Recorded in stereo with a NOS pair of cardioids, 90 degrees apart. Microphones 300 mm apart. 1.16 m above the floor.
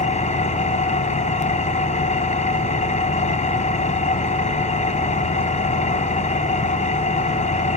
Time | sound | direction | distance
0.0 | an engine running | 25° left | 3 m